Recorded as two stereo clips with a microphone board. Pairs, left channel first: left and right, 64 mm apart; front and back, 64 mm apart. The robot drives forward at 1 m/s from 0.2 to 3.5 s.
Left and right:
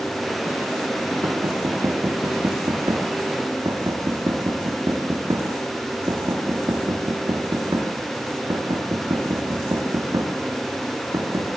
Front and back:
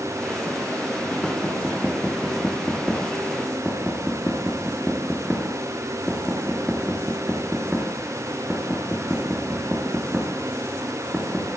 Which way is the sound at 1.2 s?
80° right.